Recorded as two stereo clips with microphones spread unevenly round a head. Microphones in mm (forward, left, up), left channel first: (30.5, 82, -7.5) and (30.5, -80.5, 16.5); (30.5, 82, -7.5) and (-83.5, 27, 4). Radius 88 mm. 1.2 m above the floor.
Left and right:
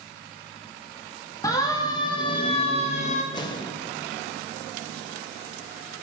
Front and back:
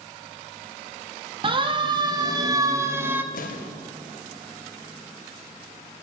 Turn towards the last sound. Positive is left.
turn(degrees=25)